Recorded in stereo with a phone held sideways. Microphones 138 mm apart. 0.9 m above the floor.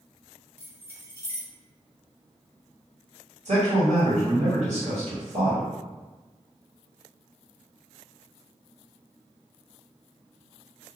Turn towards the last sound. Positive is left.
turn(degrees=-65)  # may be behind; listen again after turning